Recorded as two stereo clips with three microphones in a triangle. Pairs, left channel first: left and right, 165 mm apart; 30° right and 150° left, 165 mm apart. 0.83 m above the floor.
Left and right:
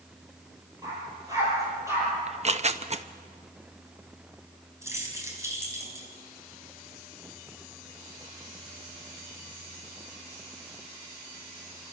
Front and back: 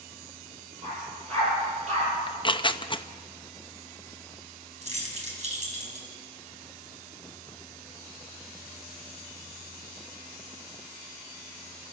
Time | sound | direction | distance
0.8 | a dog barking | 160° right | 9 m
2.3 | tearing paper | 75° right | 0.7 m
4.8 | keys jangling | 165° right | 4.5 m